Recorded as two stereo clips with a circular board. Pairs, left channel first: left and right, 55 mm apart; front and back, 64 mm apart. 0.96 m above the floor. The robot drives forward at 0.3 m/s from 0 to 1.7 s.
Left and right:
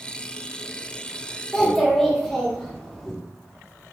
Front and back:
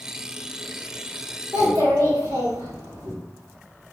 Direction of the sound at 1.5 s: 175° left.